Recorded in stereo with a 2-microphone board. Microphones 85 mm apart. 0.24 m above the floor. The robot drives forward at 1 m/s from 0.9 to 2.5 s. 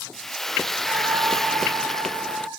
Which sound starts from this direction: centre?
Frying, at 0.1 s.